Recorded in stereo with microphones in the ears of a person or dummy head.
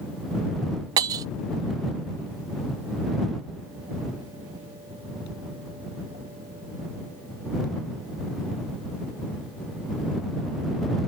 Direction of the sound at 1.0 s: 20° right (ahead or behind).